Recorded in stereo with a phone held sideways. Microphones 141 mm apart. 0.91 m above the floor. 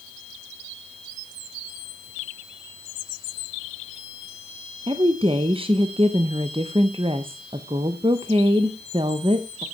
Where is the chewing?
No chewing in this recording.